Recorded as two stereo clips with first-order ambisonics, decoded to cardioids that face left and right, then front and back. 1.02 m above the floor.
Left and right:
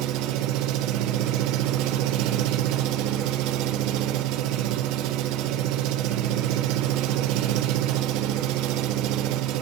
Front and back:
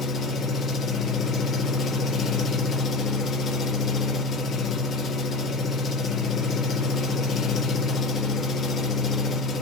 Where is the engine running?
65° right, 1.2 m.